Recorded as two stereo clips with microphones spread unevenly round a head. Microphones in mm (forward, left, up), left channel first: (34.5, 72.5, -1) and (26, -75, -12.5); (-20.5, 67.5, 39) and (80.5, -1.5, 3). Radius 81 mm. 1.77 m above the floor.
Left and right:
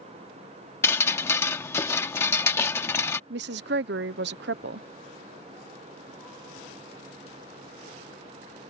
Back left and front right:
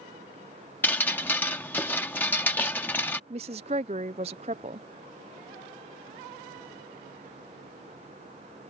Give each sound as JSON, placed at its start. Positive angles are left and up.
{"t": 0.8, "sound": "dripping", "azimuth_deg": 135}
{"t": 3.3, "sound": "a woman speaking", "azimuth_deg": -90}